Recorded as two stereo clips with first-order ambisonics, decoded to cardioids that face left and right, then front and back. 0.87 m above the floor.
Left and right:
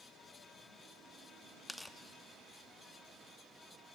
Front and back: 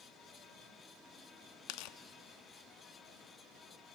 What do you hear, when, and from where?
1.7 s tearing paper: straight ahead, 0.5 m